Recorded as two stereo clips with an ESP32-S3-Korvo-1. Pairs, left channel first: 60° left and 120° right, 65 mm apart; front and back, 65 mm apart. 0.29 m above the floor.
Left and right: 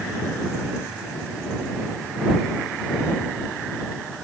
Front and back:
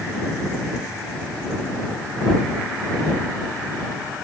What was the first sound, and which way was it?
Only background noise.